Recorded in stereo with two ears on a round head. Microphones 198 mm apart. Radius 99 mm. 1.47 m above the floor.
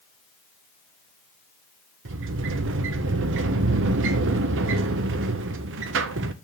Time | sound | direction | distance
2.0 | a sliding door | 60° right (ahead or behind) | 0.8 m